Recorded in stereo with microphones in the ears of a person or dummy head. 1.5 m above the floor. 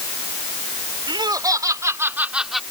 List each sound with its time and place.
1.1 s laughter: 20° right (ahead or behind); by 2.6 s centre (ahead or behind)